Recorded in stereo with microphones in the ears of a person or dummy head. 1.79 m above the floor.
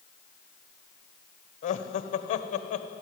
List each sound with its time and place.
1.6 s laughter: 45° left (ahead or behind), 1.2 m